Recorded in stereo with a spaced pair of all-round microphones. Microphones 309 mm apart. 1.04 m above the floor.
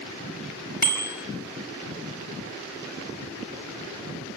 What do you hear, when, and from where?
0.8 s a bicycle bell: 25° left (ahead or behind), 3.5 m